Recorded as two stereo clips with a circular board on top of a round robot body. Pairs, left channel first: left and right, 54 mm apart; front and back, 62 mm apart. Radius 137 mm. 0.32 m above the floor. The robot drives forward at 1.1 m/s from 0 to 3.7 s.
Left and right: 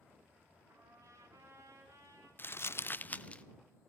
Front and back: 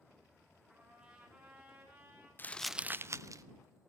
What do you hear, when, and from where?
0.7 s a trumpet: 105° right, 5.5 m; by 2.3 s 120° right, 6.5 m
2.4 s crumpling: 50° left, 0.6 m; by 3.4 s 160° left, 1.0 m